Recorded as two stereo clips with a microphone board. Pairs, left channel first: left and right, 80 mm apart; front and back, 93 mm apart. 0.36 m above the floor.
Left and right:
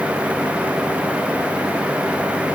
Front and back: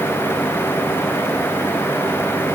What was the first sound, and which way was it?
Only background noise.